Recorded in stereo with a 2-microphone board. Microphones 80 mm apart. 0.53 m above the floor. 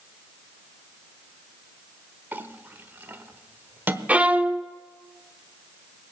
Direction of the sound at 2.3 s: 25° right (ahead or behind).